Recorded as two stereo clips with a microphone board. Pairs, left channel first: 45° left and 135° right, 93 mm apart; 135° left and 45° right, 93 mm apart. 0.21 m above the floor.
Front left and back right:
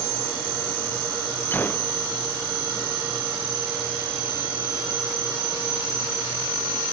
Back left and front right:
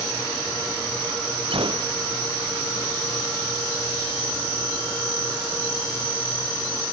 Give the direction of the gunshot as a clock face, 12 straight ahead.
1 o'clock.